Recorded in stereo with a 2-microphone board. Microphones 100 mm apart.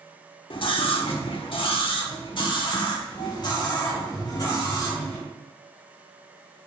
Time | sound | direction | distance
0.5 | a scream | 55° left (ahead or behind) | 1.2 m